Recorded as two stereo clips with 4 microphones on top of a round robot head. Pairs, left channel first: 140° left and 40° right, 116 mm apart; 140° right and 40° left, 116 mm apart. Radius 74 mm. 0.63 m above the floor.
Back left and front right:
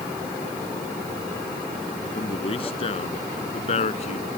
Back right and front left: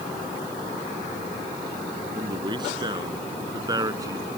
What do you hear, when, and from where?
2.1 s a man speaking: 95° left; by 4.3 s 105° left